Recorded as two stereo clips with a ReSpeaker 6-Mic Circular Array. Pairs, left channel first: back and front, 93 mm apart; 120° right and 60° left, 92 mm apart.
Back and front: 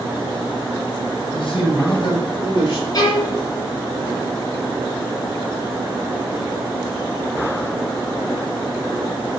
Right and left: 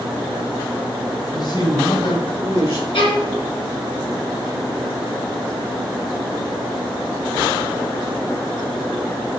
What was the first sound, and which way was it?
A man speaking, 155° right.